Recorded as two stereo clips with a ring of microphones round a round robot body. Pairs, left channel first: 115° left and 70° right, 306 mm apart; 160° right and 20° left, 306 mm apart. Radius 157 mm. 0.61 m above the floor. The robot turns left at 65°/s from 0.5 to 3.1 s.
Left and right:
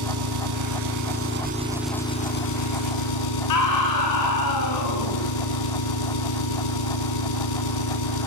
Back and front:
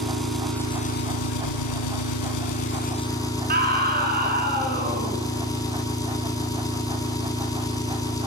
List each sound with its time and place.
0.0 s an engine running: 70° right, 4 m; by 8.3 s 125° left, 4 m
3.5 s a scream: 85° left, 9 m